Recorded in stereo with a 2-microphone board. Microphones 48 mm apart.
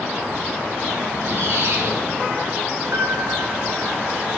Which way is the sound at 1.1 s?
60° right (ahead or behind).